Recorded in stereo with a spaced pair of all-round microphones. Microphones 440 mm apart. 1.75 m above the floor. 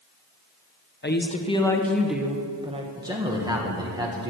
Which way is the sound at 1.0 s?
25° left (ahead or behind).